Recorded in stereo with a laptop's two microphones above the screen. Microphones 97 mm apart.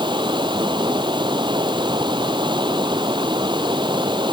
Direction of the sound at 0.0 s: 55° right (ahead or behind).